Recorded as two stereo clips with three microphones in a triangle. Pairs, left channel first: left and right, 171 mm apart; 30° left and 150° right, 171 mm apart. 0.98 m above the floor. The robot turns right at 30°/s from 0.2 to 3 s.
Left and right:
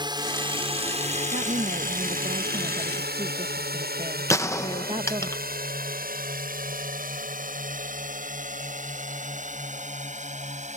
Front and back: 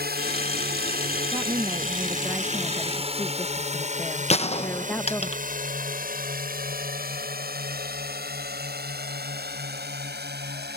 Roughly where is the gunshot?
Ahead left.